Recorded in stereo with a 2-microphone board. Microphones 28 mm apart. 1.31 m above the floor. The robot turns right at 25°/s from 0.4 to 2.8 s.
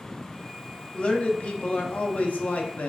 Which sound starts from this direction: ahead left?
A man speaking, at 0.9 s.